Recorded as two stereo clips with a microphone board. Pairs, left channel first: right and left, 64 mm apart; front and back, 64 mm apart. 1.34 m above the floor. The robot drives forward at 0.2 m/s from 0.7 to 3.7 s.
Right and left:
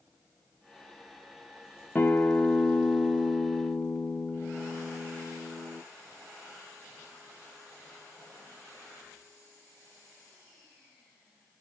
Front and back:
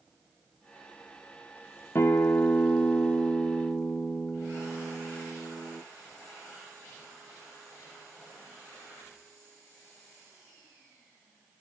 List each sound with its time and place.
1.9 s a guitar: 35° right, 0.6 m; by 5.8 s 80° right, 0.5 m